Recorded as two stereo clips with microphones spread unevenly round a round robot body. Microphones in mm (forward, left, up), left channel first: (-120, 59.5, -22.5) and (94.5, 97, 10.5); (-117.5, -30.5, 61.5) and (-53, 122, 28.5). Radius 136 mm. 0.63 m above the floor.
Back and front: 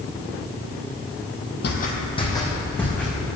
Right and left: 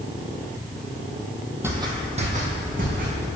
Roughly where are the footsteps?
Behind left.